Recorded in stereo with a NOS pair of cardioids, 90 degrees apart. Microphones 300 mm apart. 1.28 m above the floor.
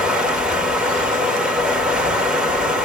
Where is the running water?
Straight ahead, 2.5 m.